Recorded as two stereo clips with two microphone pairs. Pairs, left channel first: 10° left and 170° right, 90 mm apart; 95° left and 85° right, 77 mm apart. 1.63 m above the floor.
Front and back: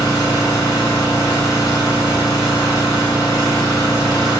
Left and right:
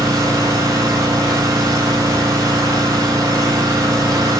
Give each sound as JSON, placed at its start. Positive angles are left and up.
{"t": 0.0, "sound": "an engine running", "azimuth_deg": -40, "distance_m": 7.0}